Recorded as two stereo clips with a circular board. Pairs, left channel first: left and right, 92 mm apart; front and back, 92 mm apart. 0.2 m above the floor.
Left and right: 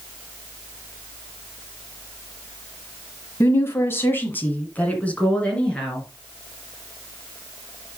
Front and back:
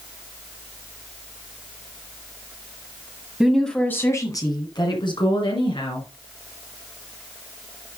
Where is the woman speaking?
105° left, 1.4 m; by 6.1 s 10° left, 4 m.